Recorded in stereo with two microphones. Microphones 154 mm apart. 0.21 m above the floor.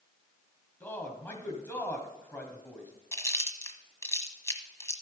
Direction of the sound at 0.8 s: 15° left (ahead or behind).